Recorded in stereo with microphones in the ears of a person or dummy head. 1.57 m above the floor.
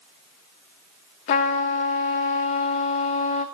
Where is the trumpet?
45° left (ahead or behind), 1.0 m.